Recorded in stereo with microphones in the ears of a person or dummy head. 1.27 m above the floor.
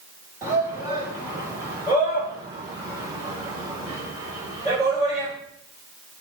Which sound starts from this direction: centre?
A shout, at 0.4 s.